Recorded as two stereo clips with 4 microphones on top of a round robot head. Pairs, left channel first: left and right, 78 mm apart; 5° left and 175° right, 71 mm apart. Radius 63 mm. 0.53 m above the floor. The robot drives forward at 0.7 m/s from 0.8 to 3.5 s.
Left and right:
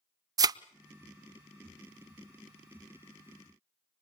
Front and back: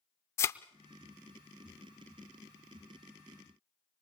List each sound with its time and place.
0.4 s a thud: 55° right, 0.6 m